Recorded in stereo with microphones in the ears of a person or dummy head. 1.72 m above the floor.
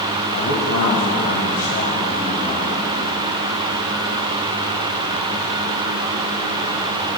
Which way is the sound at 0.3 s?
75° left (ahead or behind).